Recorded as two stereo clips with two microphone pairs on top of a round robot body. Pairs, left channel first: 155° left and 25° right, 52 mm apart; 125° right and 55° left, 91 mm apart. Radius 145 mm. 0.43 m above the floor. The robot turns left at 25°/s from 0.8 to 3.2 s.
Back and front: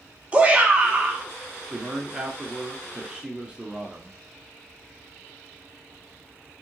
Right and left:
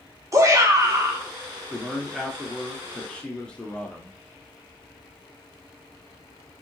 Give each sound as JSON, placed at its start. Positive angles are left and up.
{"t": 0.3, "sound": "a shout", "azimuth_deg": 25, "distance_m": 1.3}
{"t": 1.7, "sound": "a man speaking", "azimuth_deg": -5, "distance_m": 1.1}